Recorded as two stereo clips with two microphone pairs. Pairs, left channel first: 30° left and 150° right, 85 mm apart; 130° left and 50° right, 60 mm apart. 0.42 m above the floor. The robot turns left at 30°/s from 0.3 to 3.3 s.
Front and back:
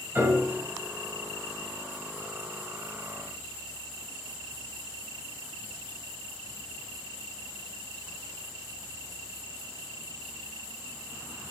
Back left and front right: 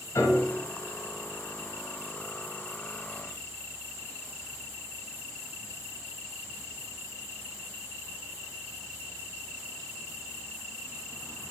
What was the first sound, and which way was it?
A piano, 145° left.